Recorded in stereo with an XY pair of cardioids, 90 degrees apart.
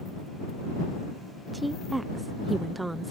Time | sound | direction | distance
1.5 | a woman speaking | 20° right | ?